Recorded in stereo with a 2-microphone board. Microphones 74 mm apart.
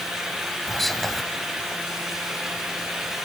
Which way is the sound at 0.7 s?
Centre (ahead or behind).